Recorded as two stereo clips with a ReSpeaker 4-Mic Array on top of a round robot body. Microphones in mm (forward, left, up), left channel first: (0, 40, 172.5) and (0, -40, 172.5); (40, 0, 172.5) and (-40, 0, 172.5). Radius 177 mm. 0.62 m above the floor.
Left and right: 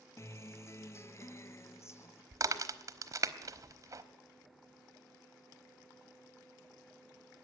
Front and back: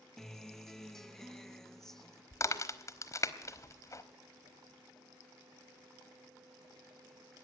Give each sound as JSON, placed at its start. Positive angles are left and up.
{"t": 0.2, "sound": "a guitar", "azimuth_deg": 80, "distance_m": 0.8}
{"t": 2.3, "sound": "a crack", "azimuth_deg": -45, "distance_m": 1.2}